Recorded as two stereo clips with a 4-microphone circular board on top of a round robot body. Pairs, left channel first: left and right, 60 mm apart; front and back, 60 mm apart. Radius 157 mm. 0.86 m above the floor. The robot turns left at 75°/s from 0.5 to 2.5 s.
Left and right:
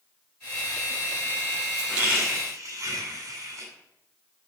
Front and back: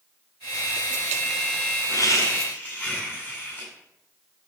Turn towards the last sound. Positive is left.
turn(degrees=-70)